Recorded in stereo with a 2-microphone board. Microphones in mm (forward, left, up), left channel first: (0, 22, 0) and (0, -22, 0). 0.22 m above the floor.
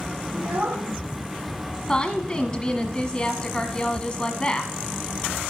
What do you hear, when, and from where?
0.3 s a child speaking: 30° right (ahead or behind), 8 m
1.9 s a woman speaking: 20° left (ahead or behind), 1.4 m